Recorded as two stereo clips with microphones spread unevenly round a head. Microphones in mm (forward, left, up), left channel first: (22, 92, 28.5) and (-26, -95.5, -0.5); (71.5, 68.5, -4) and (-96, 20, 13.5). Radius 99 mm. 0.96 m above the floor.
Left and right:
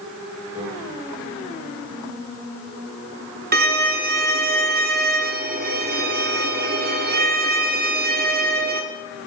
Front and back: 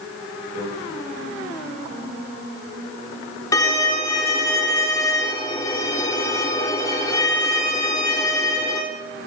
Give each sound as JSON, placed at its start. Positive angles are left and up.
{"t": 0.6, "sound": "a microwave", "azimuth_deg": 175, "distance_m": 8.5}
{"t": 3.5, "sound": "a violin", "azimuth_deg": -60, "distance_m": 1.3}